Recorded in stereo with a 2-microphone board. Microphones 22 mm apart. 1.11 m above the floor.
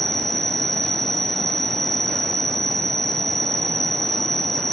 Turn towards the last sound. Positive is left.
turn(degrees=15)  # may be behind; listen again after turning